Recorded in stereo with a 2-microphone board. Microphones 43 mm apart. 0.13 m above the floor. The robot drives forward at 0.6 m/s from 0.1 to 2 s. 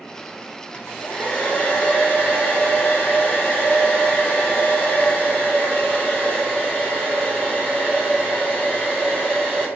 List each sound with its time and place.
0.7 s a hair dryer: 45° left (ahead or behind), 1.0 m; by 9.7 s 25° left (ahead or behind), 1.6 m